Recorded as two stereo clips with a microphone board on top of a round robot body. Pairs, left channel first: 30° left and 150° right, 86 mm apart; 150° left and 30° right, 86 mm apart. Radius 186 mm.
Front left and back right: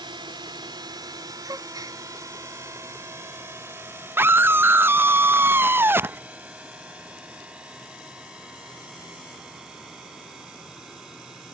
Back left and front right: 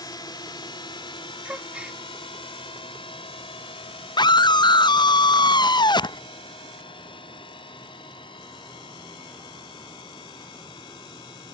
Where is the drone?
170° right; by 11.5 s 125° left.